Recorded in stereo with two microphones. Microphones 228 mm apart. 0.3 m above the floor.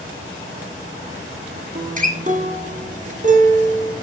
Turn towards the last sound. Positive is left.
turn(degrees=-35)  # may be behind; listen again after turning